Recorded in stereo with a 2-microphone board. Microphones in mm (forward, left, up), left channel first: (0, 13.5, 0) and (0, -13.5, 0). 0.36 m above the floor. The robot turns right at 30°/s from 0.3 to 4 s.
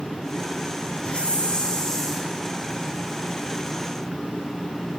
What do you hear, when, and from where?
1.1 s a hiss: 135° left, 4.5 m; by 2.3 s 170° left, 4.5 m